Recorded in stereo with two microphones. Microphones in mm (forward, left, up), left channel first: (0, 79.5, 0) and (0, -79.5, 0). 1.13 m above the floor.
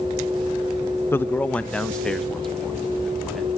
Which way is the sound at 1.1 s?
15° left (ahead or behind).